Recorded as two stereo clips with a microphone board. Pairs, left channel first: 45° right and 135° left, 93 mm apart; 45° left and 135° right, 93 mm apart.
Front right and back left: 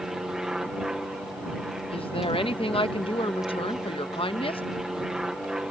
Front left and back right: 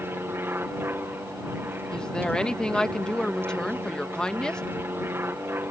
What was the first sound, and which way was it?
An aircraft, 150° right.